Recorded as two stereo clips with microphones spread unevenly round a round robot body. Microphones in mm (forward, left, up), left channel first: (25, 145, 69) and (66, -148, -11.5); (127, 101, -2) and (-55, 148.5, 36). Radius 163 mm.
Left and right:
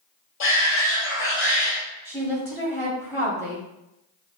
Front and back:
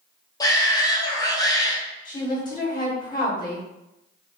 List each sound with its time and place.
0.4 s a shout: 45° left, 1.3 m
2.0 s a woman speaking: straight ahead, 1.1 m